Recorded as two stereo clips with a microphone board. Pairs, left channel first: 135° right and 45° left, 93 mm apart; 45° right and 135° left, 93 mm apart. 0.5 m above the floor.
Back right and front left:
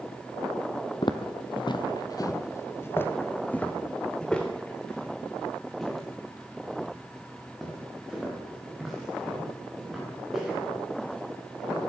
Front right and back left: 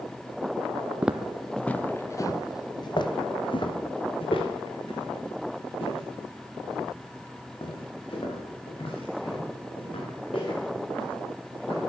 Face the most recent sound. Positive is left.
turn(degrees=-40)